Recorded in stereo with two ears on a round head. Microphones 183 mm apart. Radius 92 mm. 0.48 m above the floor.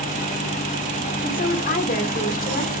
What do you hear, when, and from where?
1.2 s a woman speaking: 40° left (ahead or behind), 1.5 m